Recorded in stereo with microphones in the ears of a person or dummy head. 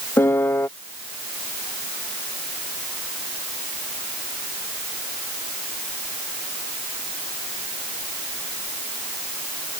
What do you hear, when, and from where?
0.2 s a piano: 5° left (ahead or behind)